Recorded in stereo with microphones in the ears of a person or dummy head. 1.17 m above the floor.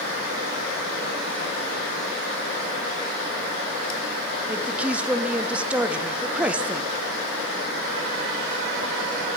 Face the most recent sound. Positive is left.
turn(degrees=-10)  # may be behind; listen again after turning